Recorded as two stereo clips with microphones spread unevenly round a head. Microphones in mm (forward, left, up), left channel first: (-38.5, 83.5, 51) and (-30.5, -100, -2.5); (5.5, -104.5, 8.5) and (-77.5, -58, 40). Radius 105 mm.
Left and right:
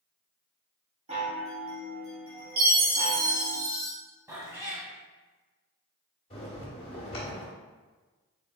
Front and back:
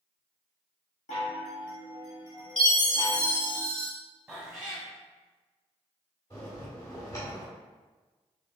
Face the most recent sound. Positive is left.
turn(degrees=55)